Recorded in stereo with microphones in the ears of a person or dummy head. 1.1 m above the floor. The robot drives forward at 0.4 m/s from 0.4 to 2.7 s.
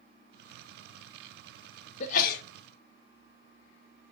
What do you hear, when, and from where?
2.0 s a sneeze: 45° left (ahead or behind), 0.6 m; by 2.4 s 55° left (ahead or behind), 0.5 m